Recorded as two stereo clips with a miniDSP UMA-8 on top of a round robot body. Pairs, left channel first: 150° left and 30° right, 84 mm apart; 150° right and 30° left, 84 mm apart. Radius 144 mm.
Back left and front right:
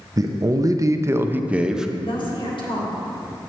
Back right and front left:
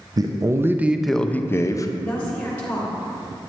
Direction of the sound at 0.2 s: 5° left.